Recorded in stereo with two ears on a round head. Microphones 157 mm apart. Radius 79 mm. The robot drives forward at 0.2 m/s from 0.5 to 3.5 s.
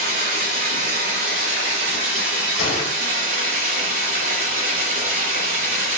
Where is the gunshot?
85° left, 1.9 m.